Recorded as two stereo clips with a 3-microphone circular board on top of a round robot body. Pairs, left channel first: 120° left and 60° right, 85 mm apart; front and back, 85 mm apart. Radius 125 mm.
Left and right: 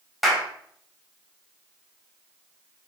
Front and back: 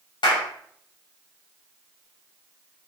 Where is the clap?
30° left, 3.5 m.